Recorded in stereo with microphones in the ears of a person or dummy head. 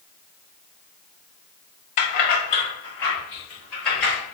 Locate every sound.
2.0 s keys jangling: 35° left (ahead or behind), 0.7 m; by 4.1 s 5° right (ahead or behind), 2.5 m